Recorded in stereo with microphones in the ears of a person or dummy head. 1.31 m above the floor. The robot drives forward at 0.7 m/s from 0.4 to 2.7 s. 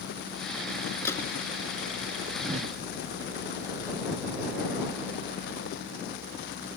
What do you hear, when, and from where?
1.1 s a gunshot: 10° left (ahead or behind)
2.4 s a whoosh: 40° right (ahead or behind); by 2.8 s 45° right (ahead or behind)